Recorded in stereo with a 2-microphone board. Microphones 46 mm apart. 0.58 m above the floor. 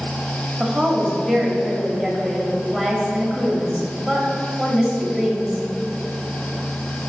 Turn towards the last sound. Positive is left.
turn(degrees=5)  # may be behind; listen again after turning